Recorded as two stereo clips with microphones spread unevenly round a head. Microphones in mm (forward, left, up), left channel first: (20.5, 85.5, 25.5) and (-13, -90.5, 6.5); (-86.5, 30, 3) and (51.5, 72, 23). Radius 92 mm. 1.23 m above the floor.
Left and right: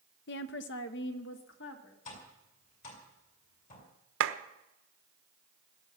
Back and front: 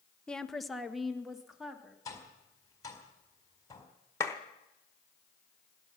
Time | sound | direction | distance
0.3 | a woman speaking | 115° left | 0.7 m
2.0 | tapping | 130° left | 4 m
4.2 | a clap | 90° right | 1.0 m